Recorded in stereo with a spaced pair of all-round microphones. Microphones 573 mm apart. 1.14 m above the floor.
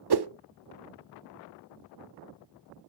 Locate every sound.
0.1 s a whoosh: 45° right (ahead or behind), 0.5 m